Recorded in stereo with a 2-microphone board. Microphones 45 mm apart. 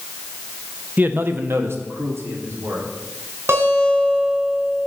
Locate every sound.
1.0 s a man speaking: 40° right (ahead or behind), 0.6 m; by 2.9 s 80° right, 3 m
3.5 s a guitar: 70° right (ahead or behind), 4 m